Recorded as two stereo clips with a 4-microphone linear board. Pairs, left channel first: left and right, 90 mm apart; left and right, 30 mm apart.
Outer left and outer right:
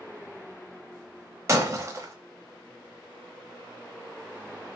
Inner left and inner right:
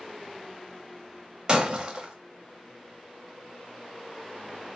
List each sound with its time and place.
1.5 s breaking glass: 30° right (ahead or behind), 0.7 m